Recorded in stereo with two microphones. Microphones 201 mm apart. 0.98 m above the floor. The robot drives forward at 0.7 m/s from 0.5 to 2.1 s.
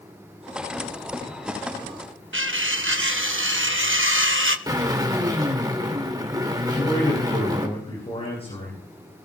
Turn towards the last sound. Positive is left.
turn(degrees=30)  # may be behind; listen again after turning